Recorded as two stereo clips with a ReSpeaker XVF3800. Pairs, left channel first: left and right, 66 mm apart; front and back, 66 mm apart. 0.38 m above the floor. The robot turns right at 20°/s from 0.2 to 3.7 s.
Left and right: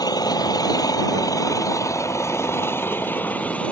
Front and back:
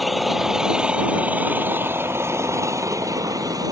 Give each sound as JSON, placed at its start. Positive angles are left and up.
{"t": 0.0, "sound": "an engine running", "azimuth_deg": 90}